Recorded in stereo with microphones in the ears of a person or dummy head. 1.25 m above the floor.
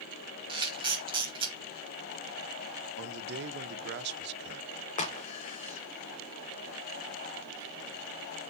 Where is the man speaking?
55° right (ahead or behind), 0.7 m.